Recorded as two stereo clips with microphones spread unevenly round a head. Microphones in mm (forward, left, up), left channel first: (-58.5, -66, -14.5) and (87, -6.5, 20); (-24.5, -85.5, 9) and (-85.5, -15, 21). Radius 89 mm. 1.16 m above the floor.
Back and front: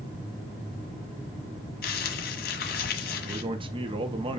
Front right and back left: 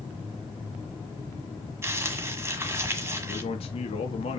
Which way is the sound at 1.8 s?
Straight behind.